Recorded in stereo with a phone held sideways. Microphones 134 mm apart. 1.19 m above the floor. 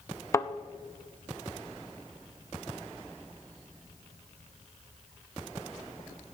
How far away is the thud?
About 0.5 m.